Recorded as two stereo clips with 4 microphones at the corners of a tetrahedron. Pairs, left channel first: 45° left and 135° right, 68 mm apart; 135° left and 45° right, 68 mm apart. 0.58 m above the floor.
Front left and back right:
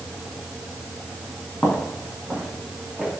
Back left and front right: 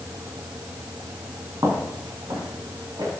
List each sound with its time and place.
1.6 s footsteps: 25° right, 4 m; by 3.1 s 45° right, 5 m